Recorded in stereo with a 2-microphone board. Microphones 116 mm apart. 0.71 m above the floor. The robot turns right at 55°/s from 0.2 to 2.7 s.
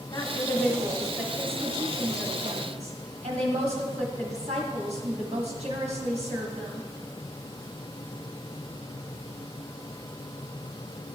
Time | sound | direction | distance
0.1 | a woman speaking | 135° left | 1.6 m